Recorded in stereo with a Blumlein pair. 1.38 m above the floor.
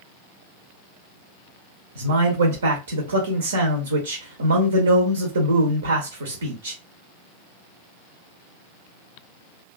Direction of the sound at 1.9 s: 70° right.